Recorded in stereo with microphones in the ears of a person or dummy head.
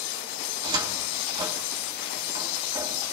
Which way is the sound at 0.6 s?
25° right (ahead or behind).